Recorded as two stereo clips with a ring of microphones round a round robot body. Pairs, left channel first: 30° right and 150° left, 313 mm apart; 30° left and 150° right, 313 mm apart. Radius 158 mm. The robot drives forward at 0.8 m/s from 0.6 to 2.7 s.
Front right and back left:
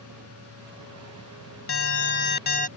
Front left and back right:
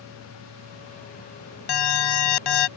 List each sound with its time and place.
1.7 s an alarm: 20° left; by 2.7 s 40° left